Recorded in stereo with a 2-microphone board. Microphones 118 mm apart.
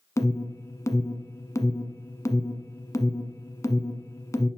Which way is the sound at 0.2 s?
25° left (ahead or behind).